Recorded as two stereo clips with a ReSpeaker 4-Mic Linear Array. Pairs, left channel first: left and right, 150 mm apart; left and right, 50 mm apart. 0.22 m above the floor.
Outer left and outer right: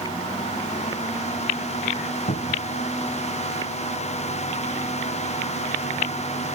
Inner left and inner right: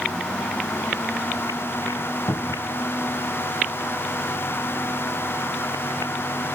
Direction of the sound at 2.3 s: 80° left.